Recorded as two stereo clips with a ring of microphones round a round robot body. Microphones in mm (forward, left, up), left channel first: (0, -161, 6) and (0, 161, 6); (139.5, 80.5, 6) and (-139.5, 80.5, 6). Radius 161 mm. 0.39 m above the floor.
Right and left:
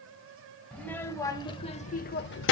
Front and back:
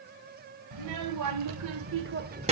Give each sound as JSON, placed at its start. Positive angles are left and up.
{"t": 0.7, "sound": "a child speaking", "azimuth_deg": -175, "distance_m": 1.2}